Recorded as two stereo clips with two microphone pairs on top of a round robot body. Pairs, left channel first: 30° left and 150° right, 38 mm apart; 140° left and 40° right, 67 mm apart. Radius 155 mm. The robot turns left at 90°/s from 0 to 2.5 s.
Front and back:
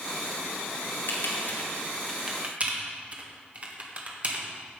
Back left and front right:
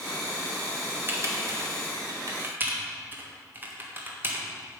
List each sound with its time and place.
1.1 s typing on a keyboard: 25° left, 1.6 m; by 4.5 s 100° right, 1.6 m